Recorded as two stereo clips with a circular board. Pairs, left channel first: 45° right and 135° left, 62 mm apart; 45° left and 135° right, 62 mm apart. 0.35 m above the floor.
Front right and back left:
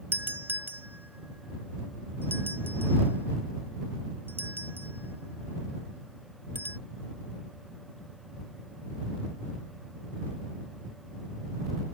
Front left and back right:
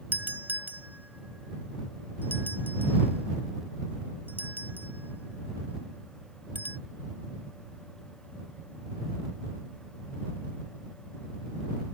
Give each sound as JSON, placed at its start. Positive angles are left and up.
{"t": 0.1, "sound": "a doorbell", "azimuth_deg": 175}